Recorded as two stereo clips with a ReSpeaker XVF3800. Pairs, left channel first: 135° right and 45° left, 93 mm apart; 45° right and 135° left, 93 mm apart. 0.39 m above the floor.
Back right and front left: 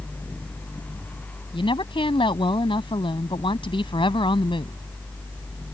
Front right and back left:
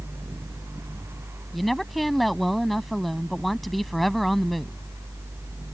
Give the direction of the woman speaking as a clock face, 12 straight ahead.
4 o'clock.